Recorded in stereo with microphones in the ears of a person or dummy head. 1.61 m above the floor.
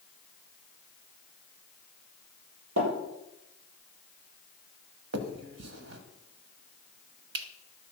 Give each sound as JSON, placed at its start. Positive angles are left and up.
{"t": 2.8, "sound": "tapping", "side_deg": -75, "distance_m": 6.0}
{"t": 5.1, "sound": "a finger snap", "side_deg": -75, "distance_m": 1.4}